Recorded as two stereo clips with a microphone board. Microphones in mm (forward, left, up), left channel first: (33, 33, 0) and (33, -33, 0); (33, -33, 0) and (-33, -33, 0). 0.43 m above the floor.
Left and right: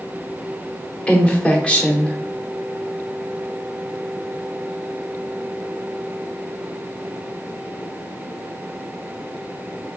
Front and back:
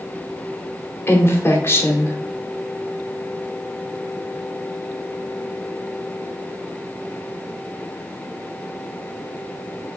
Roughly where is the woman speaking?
Ahead left.